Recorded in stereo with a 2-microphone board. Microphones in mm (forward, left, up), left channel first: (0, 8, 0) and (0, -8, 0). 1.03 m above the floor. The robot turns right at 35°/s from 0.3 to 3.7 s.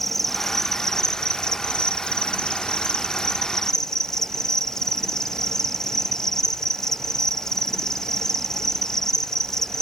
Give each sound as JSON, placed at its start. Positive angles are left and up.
{"t": 0.0, "sound": "an insect", "azimuth_deg": 20, "distance_m": 0.9}